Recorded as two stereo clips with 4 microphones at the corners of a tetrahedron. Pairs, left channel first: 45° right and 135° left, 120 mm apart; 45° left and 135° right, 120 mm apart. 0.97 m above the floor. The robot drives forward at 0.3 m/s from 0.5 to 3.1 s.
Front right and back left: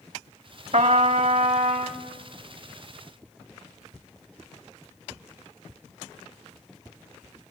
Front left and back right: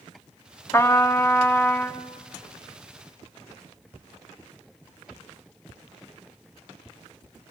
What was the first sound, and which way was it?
A trumpet, 115° left.